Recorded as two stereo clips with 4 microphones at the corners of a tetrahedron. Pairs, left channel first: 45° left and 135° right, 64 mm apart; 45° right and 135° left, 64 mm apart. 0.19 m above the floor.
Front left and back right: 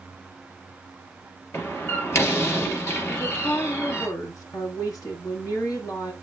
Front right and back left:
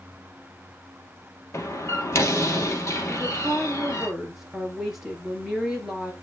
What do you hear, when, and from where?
1.5 s a door slam: 5° right, 2.5 m
3.1 s a woman speaking: 50° left, 3.5 m